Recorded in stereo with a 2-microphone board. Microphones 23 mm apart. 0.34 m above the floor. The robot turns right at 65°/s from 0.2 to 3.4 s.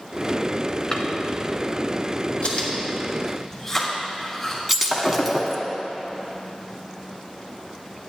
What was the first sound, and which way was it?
A drawer, 30° left (ahead or behind).